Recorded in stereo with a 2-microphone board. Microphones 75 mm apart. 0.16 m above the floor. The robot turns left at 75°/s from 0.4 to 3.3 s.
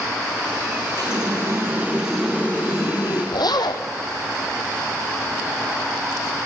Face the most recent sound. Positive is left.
turn(degrees=80)